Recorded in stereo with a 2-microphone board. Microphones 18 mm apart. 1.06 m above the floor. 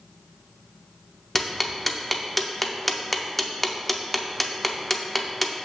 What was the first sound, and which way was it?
Ticking, 10° left (ahead or behind).